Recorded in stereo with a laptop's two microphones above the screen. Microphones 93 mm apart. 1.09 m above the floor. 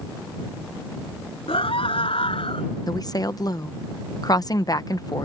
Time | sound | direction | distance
1.5 | a scream | 75° left (ahead or behind) | ?
2.9 | a woman speaking | 45° left (ahead or behind) | ?